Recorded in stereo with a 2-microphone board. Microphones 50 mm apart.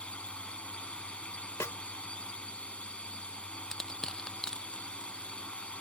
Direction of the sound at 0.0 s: 25° left (ahead or behind).